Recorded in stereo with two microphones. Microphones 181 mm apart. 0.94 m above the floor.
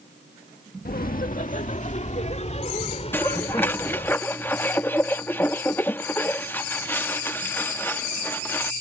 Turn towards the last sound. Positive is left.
turn(degrees=10)  # may be behind; listen again after turning